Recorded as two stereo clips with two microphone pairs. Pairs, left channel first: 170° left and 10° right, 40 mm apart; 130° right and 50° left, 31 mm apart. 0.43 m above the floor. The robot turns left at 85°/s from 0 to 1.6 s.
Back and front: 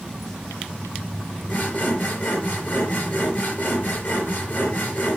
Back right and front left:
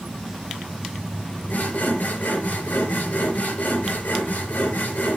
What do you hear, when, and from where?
1.5 s sawing: 140° right, 4.5 m; by 5.2 s 150° right, 4.5 m